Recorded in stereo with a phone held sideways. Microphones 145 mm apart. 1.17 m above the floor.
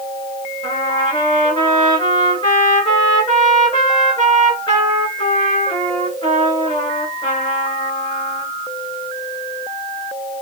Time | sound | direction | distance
0.6 | a trumpet | 35° left (ahead or behind) | 2.5 m